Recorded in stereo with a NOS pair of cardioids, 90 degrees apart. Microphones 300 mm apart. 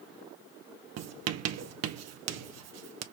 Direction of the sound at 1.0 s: 60° right.